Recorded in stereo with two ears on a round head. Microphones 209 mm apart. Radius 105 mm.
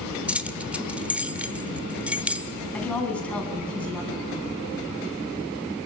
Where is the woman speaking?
5° left (ahead or behind), 4.5 m.